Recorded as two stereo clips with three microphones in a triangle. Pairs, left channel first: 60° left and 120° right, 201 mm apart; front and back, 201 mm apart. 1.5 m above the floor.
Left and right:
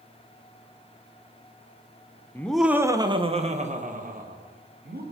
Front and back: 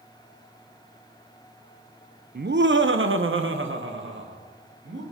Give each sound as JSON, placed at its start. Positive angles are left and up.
{"t": 2.4, "sound": "laughter", "azimuth_deg": 140, "distance_m": 0.7}